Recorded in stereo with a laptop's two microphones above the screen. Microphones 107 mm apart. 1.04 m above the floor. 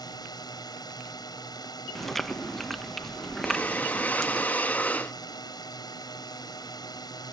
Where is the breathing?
15° left (ahead or behind).